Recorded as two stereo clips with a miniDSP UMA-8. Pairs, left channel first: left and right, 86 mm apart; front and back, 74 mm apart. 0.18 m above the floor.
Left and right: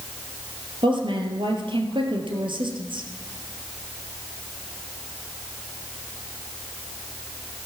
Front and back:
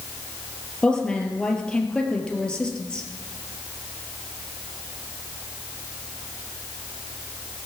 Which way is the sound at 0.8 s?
75° right.